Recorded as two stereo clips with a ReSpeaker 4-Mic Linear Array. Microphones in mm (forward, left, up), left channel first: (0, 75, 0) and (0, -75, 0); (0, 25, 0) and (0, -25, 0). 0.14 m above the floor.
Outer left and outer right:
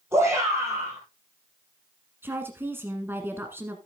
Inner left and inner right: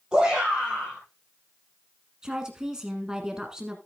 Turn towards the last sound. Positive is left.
turn(degrees=-15)  # may be behind; listen again after turning